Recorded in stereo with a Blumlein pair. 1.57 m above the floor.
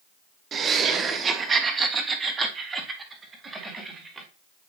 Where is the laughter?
25° right, 1.0 m; by 4.3 s 15° right, 3 m.